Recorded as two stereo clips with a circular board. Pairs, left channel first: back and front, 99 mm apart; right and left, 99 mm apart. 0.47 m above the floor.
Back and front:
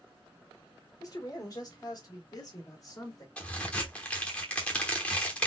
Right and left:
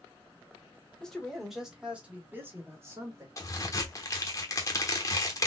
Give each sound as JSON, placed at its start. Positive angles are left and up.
{"t": 1.0, "sound": "a man speaking", "azimuth_deg": -165, "distance_m": 1.4}
{"t": 3.4, "sound": "a crack", "azimuth_deg": -110, "distance_m": 1.0}